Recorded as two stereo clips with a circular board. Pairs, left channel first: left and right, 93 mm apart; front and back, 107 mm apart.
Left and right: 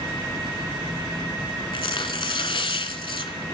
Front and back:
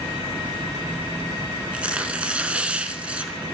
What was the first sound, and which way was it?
Tearing paper, 100° left.